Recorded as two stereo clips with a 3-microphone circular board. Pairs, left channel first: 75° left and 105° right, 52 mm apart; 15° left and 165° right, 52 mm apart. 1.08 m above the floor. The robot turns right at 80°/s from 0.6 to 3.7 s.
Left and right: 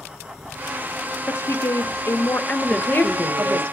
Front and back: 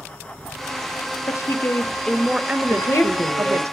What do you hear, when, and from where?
1.3 s a woman speaking: 30° left, 0.7 m; by 3.7 s 135° right, 0.7 m
2.7 s a woman speaking: 5° left, 1.7 m; by 3.6 s 80° left, 1.7 m